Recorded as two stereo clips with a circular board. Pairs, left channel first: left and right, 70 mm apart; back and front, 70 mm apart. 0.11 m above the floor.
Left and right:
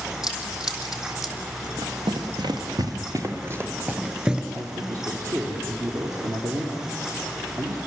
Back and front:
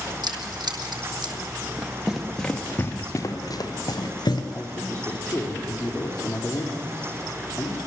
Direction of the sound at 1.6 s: 70° right.